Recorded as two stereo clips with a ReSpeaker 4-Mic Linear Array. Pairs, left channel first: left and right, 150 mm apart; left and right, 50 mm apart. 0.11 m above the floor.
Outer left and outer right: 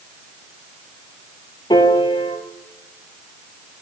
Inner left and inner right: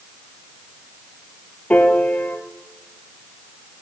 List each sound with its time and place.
1.7 s a piano: 30° left (ahead or behind), 1.0 m